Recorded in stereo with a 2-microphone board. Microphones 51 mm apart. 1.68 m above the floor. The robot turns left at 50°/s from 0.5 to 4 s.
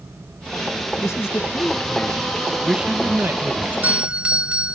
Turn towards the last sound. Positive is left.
turn(degrees=-25)  # may be behind; listen again after turning